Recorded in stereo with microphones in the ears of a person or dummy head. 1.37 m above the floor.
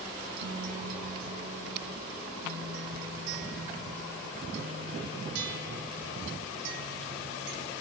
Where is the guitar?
75° right (ahead or behind), 5 m.